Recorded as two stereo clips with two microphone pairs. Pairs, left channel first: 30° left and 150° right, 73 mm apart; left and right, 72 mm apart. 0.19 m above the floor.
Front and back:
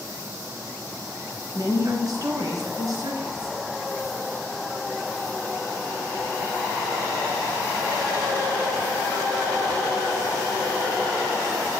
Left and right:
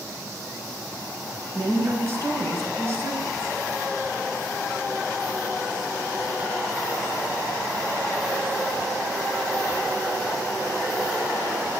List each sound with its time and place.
1.6 s a woman speaking: 130° right, 3 m